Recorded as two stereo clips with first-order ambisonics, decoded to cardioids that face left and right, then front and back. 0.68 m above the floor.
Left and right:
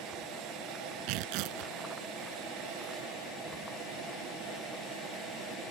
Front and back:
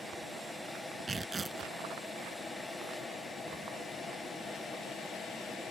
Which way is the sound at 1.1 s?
105° right.